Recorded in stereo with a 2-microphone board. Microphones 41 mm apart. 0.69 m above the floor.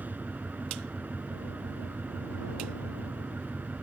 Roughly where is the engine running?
Right.